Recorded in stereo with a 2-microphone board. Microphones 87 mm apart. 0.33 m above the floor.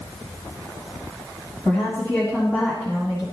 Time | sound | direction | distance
1.6 | a woman speaking | 15° left (ahead or behind) | 2 m